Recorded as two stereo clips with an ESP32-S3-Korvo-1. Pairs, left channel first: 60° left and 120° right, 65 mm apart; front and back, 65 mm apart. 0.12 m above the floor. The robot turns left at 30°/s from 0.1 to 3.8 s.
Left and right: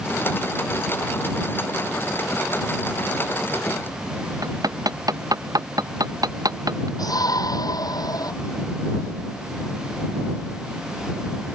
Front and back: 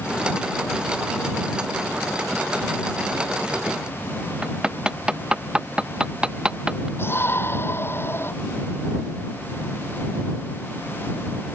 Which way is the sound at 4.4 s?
105° right.